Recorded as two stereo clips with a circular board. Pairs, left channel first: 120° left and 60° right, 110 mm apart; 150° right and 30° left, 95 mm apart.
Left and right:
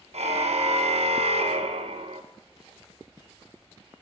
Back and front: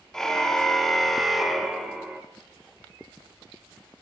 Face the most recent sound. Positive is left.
turn(degrees=-50)